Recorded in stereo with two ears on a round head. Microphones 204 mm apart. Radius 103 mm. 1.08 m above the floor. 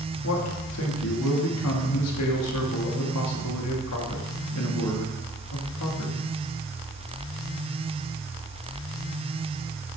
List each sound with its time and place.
0.2 s a man speaking: 80° left, 1.9 m